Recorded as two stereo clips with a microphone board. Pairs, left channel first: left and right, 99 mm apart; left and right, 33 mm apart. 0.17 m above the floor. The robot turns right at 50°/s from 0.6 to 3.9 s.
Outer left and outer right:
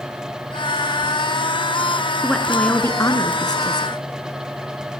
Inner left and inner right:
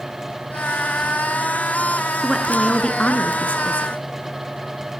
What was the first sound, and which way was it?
A woman speaking, straight ahead.